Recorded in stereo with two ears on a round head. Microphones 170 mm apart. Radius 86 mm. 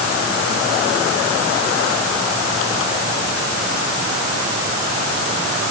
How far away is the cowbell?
No cowbell in this recording.